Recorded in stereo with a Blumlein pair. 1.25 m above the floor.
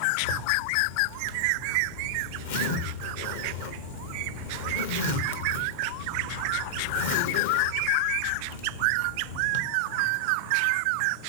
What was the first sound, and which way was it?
A zipper, 55° left.